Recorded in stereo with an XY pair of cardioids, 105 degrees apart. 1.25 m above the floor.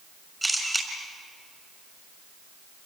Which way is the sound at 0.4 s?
10° right.